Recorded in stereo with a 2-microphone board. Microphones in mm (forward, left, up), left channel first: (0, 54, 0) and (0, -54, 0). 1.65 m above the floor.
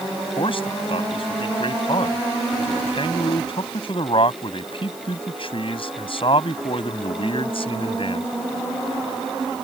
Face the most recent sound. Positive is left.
turn(degrees=55)  # may be behind; listen again after turning